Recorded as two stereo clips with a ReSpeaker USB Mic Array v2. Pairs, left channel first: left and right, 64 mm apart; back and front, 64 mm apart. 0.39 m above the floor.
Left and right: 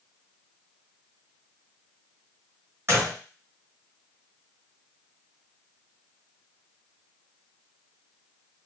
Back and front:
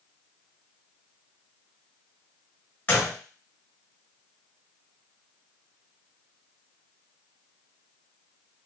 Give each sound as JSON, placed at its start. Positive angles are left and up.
{"t": 2.9, "sound": "a gunshot", "azimuth_deg": -125, "distance_m": 1.8}